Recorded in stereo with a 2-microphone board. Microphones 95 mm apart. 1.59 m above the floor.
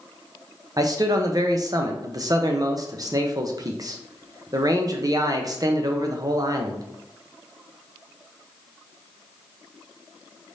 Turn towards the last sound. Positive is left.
turn(degrees=-40)  # may be behind; listen again after turning